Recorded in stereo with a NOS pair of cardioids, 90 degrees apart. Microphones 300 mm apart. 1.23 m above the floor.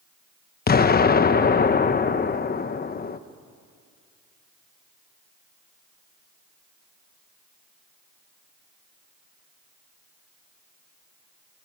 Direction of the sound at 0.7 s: 30° left.